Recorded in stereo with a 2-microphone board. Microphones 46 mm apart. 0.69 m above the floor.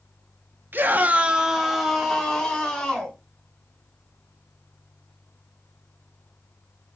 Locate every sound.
0.7 s a scream: 45° right (ahead or behind), 0.6 m; by 3.2 s 10° left (ahead or behind), 2 m